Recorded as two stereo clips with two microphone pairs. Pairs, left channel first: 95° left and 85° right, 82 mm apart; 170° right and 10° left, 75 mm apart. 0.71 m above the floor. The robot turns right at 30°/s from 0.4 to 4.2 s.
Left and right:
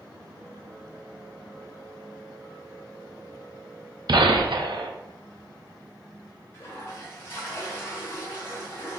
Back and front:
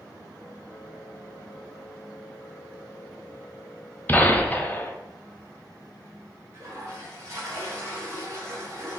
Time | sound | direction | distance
4.1 | a gunshot | 105° right | 0.5 m
6.5 | a toilet flushing | 45° left | 1.5 m